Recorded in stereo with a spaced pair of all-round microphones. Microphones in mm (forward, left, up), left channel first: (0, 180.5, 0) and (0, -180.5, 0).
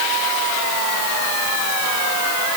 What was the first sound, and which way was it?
Only background noise.